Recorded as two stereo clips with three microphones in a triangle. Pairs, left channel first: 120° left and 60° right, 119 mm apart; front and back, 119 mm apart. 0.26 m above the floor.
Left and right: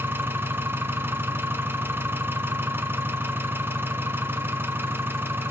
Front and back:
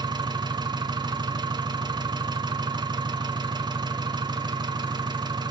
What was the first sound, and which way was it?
An engine running, 130° right.